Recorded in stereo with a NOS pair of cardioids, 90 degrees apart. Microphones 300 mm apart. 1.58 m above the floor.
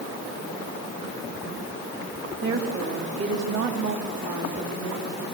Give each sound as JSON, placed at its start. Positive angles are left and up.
{"t": 2.4, "sound": "a woman speaking", "azimuth_deg": -40, "distance_m": 3.0}